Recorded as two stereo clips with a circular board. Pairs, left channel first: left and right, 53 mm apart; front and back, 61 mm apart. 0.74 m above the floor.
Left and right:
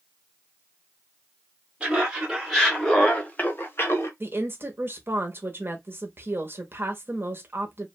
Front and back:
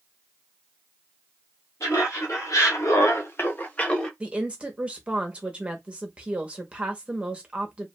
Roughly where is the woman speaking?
Behind right.